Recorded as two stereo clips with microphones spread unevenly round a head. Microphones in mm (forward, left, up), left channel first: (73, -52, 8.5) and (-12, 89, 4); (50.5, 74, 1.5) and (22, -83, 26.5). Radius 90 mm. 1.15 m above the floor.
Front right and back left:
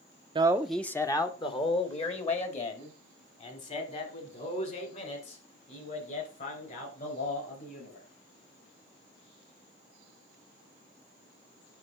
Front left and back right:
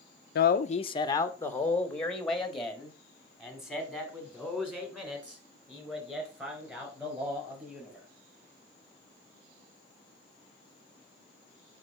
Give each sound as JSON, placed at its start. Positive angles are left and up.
{"t": 0.3, "sound": "a man speaking", "azimuth_deg": 60, "distance_m": 0.5}